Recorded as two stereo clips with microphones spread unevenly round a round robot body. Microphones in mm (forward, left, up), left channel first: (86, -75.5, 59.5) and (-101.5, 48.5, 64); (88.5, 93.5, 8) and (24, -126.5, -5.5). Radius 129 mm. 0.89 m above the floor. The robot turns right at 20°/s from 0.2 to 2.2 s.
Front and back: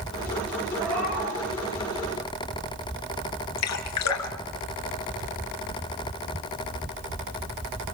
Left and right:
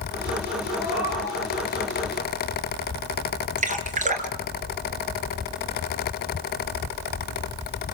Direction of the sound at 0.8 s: 170° left.